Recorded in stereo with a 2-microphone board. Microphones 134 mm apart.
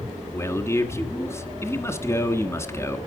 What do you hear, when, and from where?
0.3 s a man speaking: 20° left (ahead or behind), 1.6 m